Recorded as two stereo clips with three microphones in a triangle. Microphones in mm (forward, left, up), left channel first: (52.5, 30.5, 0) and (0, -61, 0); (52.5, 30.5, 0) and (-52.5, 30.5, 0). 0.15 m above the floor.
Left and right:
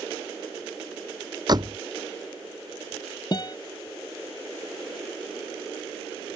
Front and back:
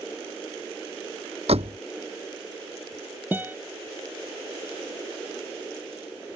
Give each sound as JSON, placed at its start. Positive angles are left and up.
{"t": 1.5, "sound": "a door slam", "azimuth_deg": -170}
{"t": 3.3, "sound": "a guitar", "azimuth_deg": 110}